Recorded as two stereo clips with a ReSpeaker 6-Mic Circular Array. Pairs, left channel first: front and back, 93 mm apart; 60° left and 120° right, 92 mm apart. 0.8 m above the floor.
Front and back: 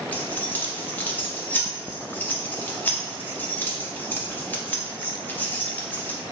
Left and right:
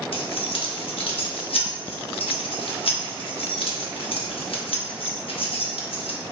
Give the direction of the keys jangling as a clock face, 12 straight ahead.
10 o'clock.